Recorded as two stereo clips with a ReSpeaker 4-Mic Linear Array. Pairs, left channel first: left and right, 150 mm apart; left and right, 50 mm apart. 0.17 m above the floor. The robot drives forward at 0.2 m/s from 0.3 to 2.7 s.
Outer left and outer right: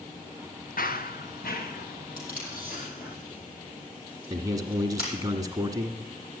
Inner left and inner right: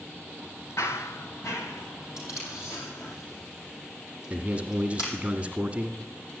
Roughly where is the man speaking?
Right.